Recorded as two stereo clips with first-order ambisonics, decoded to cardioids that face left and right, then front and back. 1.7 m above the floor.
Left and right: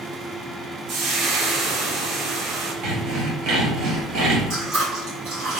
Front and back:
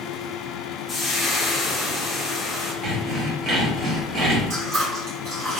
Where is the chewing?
130° right, 1.9 m.